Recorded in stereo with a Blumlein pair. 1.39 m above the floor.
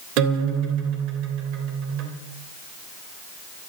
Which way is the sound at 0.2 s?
40° right.